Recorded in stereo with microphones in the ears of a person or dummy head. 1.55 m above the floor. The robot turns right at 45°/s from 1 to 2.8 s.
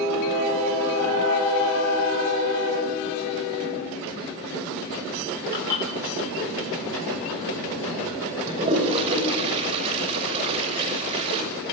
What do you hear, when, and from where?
5.5 s dishes clattering: 20° left (ahead or behind), 7 m
8.5 s a toilet flushing: 25° right (ahead or behind), 5.5 m